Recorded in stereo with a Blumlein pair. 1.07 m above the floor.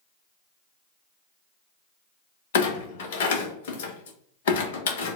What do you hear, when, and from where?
2.5 s a clunk: 55° left, 0.9 m